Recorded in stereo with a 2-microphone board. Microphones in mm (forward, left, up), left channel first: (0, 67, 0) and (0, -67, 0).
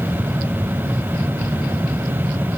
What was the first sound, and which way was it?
Only background noise.